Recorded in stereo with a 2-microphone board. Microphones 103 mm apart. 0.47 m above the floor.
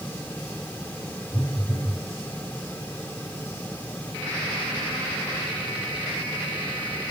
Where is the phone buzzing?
35° left (ahead or behind), 3.5 m.